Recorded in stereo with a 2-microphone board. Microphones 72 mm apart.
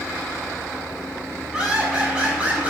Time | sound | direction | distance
1.5 | laughter | 10° right (ahead or behind) | 7 m